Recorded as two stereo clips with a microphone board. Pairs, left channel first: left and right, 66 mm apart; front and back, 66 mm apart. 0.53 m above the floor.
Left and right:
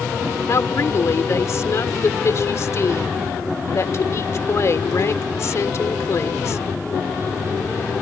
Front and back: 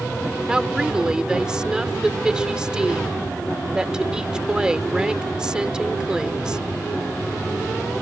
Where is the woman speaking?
105° left.